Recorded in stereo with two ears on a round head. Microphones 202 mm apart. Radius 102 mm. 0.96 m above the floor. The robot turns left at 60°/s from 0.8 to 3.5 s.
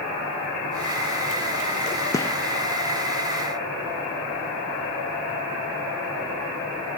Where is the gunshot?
15° left (ahead or behind), 0.5 m; by 2.4 s 5° left (ahead or behind), 0.5 m.